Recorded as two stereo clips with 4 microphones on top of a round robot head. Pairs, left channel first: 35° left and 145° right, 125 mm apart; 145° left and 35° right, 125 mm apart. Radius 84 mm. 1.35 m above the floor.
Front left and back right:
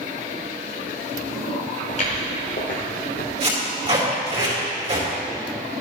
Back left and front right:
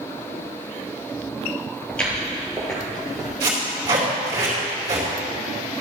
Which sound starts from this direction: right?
Tape being pulled, at 3.4 s.